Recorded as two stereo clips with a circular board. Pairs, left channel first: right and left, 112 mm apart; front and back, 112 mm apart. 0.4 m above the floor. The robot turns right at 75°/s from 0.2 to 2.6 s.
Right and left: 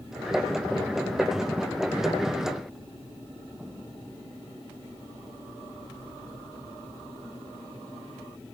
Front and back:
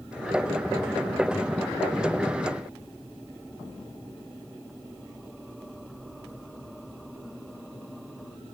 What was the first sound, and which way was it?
Only background noise.